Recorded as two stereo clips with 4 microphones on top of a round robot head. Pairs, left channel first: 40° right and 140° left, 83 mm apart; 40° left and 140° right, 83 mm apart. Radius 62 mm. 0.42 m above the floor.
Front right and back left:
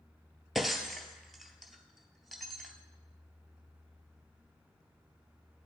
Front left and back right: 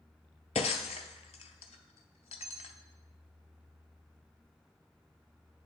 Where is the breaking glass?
50° left, 0.5 m.